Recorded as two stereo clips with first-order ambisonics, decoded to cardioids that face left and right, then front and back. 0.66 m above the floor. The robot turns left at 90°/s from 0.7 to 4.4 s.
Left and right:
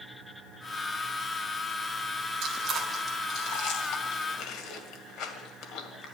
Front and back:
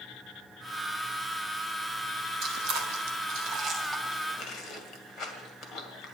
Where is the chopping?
I don't hear chopping.